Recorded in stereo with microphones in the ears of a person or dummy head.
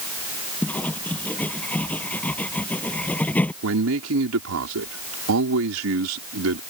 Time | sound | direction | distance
0.6 | writing | 10° left (ahead or behind) | ?
3.6 | a man speaking | 80° right | ?